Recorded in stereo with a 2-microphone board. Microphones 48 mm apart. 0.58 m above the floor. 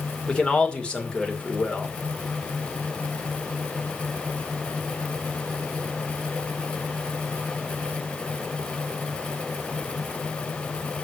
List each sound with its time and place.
0.3 s a man speaking: 20° left (ahead or behind), 2 m